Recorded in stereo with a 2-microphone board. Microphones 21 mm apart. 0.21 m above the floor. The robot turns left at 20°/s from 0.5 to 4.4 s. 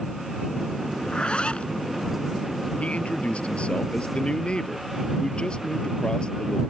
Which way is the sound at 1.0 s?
45° left (ahead or behind).